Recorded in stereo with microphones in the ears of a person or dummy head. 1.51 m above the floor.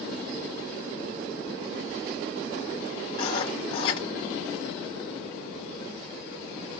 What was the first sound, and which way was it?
Writing, 30° left (ahead or behind).